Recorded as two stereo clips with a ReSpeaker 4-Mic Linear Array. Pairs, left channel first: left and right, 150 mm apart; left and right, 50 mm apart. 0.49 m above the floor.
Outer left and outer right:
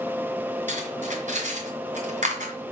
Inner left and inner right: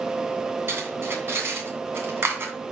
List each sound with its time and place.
0.7 s cutlery clinking: 55° right (ahead or behind), 2.5 m